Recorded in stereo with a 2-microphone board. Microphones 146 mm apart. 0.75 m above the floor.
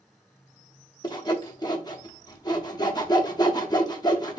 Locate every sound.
1.0 s sawing: 30° left (ahead or behind), 0.8 m